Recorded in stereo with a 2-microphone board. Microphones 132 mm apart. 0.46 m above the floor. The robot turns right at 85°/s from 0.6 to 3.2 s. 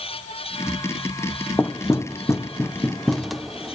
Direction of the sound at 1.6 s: 15° left (ahead or behind).